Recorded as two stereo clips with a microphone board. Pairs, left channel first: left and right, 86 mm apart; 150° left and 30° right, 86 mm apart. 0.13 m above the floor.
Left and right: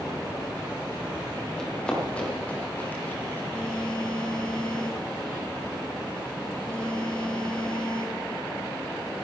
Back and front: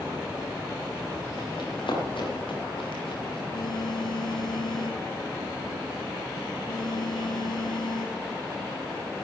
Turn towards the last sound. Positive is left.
turn(degrees=165)